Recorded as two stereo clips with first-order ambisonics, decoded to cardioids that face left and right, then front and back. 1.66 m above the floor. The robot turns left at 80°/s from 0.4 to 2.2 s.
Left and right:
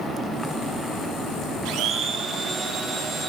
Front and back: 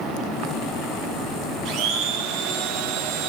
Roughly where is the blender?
Behind right.